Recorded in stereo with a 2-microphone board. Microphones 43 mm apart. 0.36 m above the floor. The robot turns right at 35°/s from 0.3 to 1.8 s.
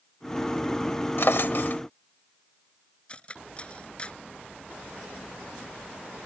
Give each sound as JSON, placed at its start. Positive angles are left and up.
{"t": 1.2, "sound": "a drawer", "side_deg": 60}
{"t": 3.1, "sound": "cutlery clinking", "side_deg": 25}